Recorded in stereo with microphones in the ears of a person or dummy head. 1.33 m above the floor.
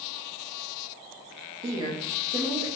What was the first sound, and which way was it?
A woman speaking, 25° right (ahead or behind).